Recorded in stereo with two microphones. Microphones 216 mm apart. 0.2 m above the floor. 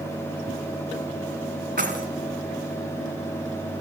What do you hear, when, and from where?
1.8 s keys jangling: 50° right (ahead or behind), 1.2 m